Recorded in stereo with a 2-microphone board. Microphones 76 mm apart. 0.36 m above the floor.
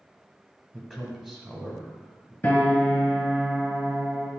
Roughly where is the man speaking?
Centre.